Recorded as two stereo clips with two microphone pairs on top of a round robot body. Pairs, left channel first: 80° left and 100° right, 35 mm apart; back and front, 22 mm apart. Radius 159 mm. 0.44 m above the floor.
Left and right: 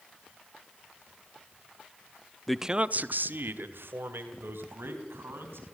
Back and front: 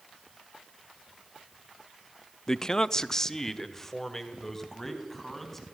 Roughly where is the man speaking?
Behind left.